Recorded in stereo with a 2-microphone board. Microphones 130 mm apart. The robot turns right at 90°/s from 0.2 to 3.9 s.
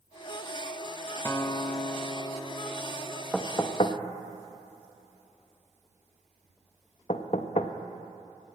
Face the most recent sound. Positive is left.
turn(degrees=50)  # may be behind; listen again after turning